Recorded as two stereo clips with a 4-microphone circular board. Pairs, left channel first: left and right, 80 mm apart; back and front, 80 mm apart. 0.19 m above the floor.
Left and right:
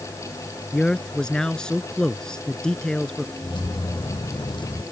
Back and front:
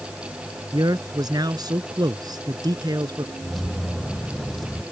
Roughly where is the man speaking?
Ahead.